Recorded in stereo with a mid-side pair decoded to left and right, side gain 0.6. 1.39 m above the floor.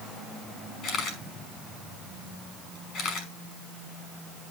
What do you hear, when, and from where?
0.8 s a camera shutter: 55° left, 5 m